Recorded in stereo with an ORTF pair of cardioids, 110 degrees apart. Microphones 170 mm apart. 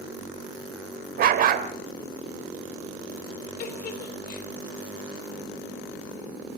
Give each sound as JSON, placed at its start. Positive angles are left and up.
{"t": 1.2, "sound": "a dog barking", "azimuth_deg": -60, "distance_m": 2.5}
{"t": 3.6, "sound": "a giggle", "azimuth_deg": 55, "distance_m": 4.5}